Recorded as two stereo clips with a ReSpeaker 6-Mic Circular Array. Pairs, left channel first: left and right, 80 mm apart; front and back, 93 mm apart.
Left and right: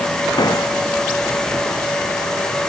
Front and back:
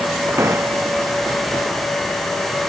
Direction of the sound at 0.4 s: 120° left.